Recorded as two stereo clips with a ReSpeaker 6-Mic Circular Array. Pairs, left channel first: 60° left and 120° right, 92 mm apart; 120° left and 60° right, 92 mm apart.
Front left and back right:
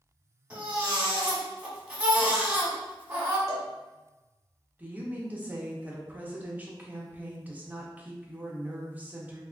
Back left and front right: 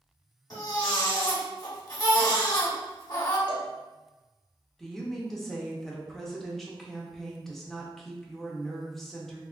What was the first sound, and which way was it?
A baby crying, 165° left.